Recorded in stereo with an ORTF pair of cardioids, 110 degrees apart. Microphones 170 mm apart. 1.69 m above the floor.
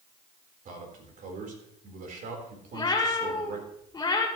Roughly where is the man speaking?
Ahead right.